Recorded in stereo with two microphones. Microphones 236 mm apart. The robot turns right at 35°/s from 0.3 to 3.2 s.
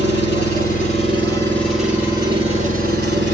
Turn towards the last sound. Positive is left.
turn(degrees=-130)